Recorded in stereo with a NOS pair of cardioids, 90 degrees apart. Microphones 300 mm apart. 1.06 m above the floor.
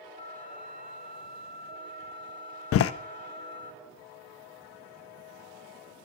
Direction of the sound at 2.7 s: 50° left.